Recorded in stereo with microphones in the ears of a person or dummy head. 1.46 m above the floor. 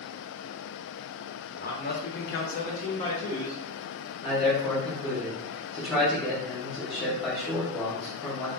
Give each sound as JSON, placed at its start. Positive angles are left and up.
{"t": 1.5, "sound": "a man speaking", "side_deg": 40, "distance_m": 0.6}
{"t": 4.2, "sound": "a man speaking", "side_deg": 25, "distance_m": 0.9}